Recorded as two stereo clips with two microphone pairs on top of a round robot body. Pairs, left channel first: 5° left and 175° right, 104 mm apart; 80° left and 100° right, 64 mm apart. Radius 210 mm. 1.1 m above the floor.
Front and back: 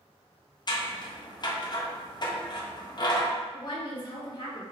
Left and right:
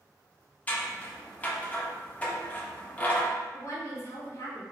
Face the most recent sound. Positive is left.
turn(degrees=40)